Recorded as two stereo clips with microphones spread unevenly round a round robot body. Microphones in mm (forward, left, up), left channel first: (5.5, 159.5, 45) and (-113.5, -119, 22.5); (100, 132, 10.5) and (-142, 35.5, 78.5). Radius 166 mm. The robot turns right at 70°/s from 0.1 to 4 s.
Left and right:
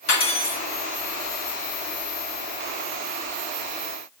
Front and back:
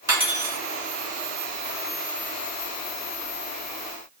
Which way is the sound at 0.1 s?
120° left.